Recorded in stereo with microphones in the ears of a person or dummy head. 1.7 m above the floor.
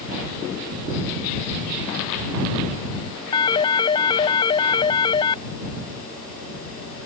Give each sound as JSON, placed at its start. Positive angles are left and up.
{"t": 3.3, "sound": "a phone ringing", "side_deg": 25}